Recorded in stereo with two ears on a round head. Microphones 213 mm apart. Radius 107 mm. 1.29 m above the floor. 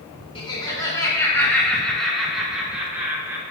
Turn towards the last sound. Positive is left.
turn(degrees=-10)  # may be behind; listen again after turning